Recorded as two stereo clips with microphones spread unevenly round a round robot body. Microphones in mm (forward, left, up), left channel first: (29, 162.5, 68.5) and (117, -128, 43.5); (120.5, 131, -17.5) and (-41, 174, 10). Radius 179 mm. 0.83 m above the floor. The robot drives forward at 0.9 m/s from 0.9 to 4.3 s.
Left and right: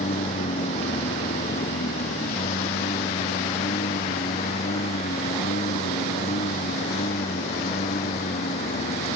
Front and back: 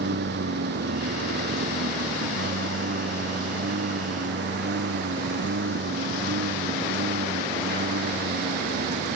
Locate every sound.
0.0 s a lawn mower: straight behind